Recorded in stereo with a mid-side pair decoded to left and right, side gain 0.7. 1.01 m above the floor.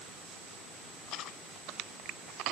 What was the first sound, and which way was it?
Only background noise.